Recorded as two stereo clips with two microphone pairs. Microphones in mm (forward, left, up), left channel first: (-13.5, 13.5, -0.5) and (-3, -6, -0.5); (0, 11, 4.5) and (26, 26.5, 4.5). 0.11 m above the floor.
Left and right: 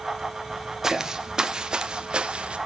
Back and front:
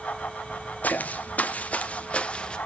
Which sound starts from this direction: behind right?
Footsteps, at 0.8 s.